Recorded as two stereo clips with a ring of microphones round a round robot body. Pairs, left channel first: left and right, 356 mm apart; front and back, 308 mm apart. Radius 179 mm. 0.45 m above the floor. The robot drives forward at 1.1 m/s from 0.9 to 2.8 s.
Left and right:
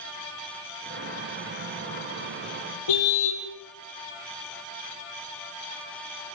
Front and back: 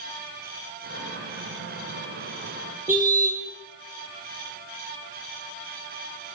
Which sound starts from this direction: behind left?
A car horn, at 2.9 s.